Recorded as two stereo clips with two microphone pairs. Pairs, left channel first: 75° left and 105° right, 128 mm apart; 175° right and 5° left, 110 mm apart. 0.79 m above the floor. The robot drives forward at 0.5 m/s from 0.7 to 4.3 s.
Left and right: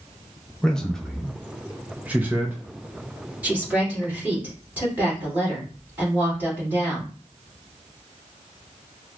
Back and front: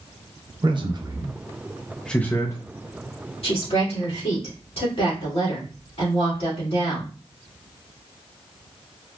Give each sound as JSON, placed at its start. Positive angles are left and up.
{"t": 0.6, "sound": "a man speaking", "azimuth_deg": -5, "distance_m": 0.8}
{"t": 3.4, "sound": "a woman speaking", "azimuth_deg": 180, "distance_m": 2.0}